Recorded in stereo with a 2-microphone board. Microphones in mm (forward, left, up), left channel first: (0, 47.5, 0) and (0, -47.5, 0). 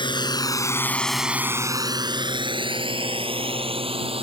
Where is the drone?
55° left (ahead or behind); by 4.2 s 75° right (ahead or behind).